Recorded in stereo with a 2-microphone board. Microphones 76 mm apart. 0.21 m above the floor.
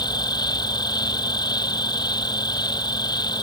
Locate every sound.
0.0 s an insect: 65° left (ahead or behind)